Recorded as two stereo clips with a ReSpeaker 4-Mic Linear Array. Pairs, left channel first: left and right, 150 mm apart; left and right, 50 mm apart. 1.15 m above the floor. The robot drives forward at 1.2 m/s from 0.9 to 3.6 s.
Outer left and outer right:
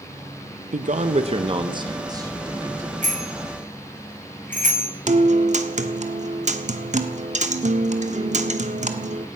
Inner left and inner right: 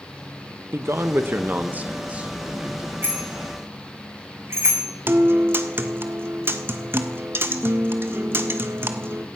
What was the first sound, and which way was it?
A man speaking, 55° right (ahead or behind).